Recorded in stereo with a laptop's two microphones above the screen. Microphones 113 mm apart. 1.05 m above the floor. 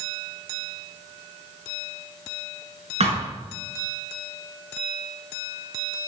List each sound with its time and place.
3.0 s a thud: 65° right (ahead or behind), 5.5 m